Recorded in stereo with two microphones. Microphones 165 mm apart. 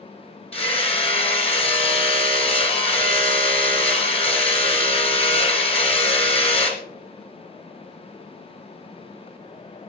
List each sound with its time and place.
0.5 s hammering: 35° left (ahead or behind), 1.0 m